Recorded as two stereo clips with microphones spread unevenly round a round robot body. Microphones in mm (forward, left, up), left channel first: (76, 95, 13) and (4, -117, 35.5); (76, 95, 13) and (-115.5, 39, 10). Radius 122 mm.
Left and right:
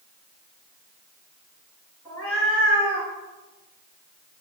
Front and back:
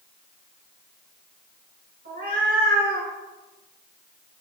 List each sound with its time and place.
2.0 s a cat meowing: 155° left, 3 m